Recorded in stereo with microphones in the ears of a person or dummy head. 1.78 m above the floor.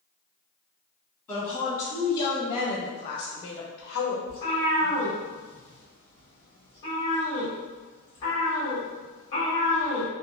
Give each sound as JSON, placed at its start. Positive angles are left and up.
{"t": 1.3, "sound": "a woman speaking", "side_deg": 15, "distance_m": 1.4}
{"t": 4.3, "sound": "a cat meowing", "side_deg": 20, "distance_m": 1.2}